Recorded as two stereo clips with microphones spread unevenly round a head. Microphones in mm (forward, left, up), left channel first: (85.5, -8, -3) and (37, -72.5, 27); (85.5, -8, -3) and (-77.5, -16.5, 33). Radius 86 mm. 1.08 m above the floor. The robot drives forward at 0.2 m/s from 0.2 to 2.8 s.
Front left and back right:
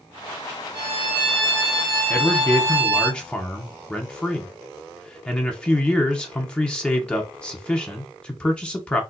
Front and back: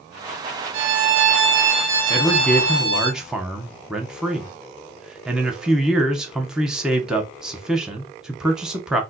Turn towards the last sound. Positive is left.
turn(degrees=80)